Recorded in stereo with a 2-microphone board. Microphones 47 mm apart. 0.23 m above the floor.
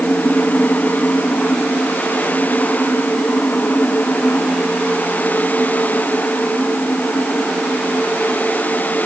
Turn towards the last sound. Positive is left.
No sound to turn to.